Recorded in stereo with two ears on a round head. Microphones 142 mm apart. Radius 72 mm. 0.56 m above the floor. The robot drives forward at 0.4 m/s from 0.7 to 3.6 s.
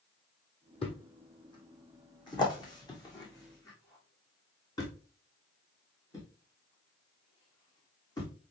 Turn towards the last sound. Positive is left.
turn(degrees=25)  # may be behind; listen again after turning